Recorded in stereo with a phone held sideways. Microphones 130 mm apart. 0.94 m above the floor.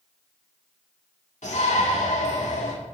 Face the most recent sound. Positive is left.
turn(degrees=70)  # may be behind; listen again after turning